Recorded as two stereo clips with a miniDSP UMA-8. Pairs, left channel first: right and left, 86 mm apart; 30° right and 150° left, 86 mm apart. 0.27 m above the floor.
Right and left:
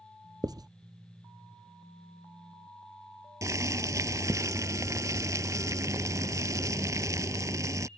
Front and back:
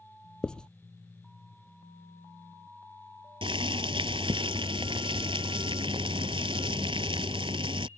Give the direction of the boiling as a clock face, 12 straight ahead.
7 o'clock.